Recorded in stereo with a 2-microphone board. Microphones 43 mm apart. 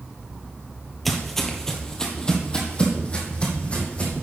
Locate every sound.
1.1 s footsteps: centre (ahead or behind), 1.2 m; by 4.2 s 30° left (ahead or behind), 2.5 m